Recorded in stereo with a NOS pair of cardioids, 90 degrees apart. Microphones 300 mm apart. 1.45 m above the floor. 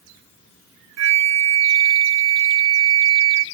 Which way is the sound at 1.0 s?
60° right.